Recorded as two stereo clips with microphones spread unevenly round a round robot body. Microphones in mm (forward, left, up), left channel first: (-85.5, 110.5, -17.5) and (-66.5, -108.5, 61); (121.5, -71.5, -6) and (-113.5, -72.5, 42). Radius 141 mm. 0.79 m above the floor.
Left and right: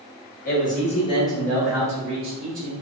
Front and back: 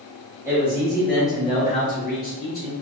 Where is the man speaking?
95° left, 1.8 m; by 2.7 s 25° right, 1.8 m.